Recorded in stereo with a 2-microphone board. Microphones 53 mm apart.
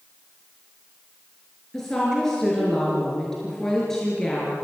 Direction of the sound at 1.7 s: 10° left (ahead or behind).